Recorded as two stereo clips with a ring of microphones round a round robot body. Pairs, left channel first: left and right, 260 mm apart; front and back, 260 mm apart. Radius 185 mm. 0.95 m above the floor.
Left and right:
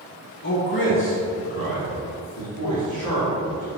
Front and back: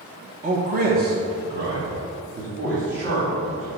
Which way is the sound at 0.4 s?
125° left.